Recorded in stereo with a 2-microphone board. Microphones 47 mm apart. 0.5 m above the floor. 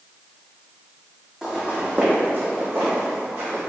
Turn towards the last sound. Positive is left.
turn(degrees=-70)  # may be behind; listen again after turning